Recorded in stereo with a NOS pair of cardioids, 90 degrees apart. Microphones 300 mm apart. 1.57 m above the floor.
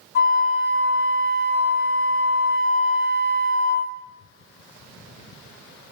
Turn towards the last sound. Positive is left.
turn(degrees=40)